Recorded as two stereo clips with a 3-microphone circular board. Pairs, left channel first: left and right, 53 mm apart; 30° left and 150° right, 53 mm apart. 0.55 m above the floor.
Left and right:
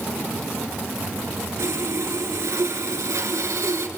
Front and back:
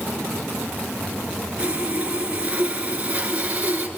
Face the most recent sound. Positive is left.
turn(degrees=-85)